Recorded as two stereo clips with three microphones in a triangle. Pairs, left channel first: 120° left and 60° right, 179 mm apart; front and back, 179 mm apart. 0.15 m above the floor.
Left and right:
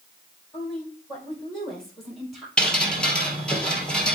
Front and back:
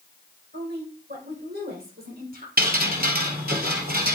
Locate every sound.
0.5 s a woman speaking: 155° right, 5.5 m; by 2.5 s 150° right, 3.5 m
2.6 s dripping: 155° right, 2.0 m